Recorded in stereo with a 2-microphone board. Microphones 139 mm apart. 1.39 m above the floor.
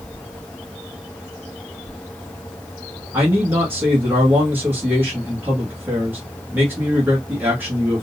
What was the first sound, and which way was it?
A man speaking, 15° right (ahead or behind).